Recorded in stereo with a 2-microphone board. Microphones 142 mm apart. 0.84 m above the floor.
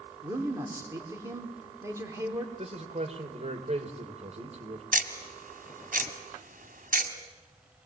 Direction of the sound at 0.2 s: 20° right (ahead or behind).